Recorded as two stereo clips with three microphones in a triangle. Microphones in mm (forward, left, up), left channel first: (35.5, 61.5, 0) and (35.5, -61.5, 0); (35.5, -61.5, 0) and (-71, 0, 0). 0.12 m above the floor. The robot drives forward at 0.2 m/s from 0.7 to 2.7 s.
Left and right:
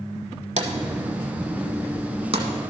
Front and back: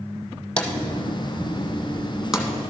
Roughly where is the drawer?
Right.